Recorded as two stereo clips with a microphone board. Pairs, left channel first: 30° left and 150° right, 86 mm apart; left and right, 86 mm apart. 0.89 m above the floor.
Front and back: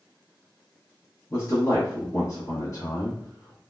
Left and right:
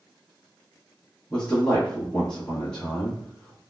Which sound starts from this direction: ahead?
A man speaking, at 1.3 s.